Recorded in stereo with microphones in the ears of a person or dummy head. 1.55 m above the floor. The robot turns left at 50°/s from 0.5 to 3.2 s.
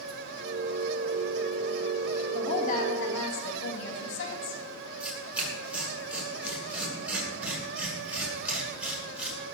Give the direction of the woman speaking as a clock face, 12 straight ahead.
7 o'clock.